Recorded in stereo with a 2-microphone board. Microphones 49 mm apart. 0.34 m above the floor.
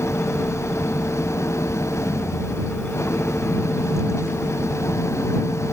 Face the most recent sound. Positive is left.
turn(degrees=70)  # may be behind; listen again after turning